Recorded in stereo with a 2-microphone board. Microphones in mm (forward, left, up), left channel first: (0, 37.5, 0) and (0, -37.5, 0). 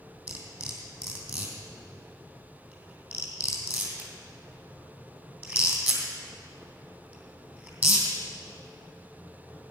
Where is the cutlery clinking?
25° right (ahead or behind), 3 m.